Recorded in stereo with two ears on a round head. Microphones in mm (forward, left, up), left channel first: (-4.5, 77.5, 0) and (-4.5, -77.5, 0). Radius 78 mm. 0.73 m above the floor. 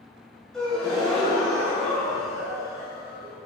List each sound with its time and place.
0.5 s a gasp: 5° left (ahead or behind), 3.5 m